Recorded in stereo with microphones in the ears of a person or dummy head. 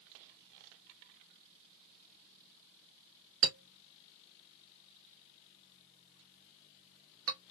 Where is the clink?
80° right, 1.3 m.